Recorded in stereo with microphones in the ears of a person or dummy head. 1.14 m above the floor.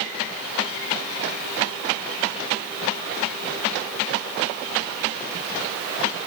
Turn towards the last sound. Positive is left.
No sound to turn to.